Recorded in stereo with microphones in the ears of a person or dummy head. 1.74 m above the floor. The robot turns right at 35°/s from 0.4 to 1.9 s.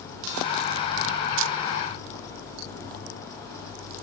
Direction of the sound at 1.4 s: 70° right (ahead or behind).